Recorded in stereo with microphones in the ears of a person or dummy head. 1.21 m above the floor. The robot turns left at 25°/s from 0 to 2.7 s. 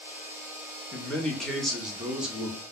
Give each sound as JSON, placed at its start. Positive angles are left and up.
{"t": 0.9, "sound": "a man speaking", "side_deg": 5, "distance_m": 0.5}